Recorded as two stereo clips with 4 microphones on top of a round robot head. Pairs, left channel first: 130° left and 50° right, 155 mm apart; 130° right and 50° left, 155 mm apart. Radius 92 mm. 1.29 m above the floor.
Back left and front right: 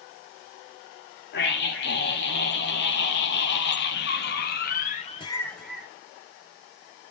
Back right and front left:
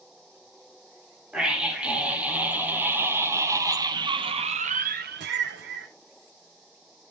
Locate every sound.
1.3 s a scream: 135° left, 3 m; by 5.9 s 30° left, 0.8 m